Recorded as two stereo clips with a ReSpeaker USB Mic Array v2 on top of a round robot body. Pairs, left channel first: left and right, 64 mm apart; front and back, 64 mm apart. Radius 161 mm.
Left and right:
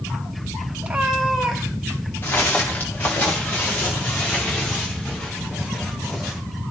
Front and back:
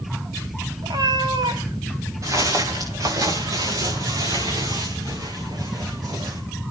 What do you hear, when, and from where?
0.8 s a cat meowing: 160° right, 1.2 m; by 2.1 s 170° left, 2 m
2.2 s footsteps: 145° left, 5.5 m; by 6.4 s 165° left, 6.5 m